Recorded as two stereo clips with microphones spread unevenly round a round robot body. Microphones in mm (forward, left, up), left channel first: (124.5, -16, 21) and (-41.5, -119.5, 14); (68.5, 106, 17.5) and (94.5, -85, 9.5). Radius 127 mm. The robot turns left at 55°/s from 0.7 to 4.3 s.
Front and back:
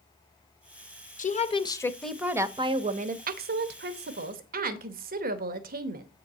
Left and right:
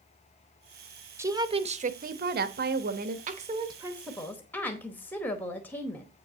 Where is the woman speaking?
10° right, 0.8 m; by 6.1 s straight behind, 0.8 m.